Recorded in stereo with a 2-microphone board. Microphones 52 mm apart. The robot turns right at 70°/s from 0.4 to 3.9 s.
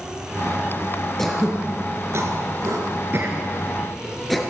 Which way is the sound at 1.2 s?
10° left (ahead or behind).